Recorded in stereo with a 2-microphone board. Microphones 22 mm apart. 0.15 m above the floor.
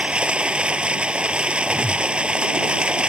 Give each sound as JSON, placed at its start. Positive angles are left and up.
{"t": 0.0, "sound": "running water", "side_deg": -60}
{"t": 1.7, "sound": "a whoosh", "side_deg": 25}